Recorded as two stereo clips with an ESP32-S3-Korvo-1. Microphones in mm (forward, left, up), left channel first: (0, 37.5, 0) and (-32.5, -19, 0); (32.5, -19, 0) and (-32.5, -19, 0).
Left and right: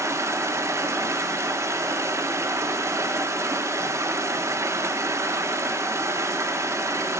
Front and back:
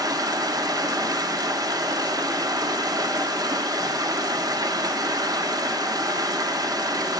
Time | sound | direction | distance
0.0 | running water | 160° right | 0.9 m